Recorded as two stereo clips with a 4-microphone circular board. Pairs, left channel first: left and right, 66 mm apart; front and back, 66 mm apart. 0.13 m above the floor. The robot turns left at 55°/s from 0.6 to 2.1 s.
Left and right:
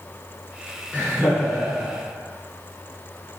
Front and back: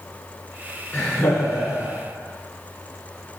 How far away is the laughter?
About 1.7 m.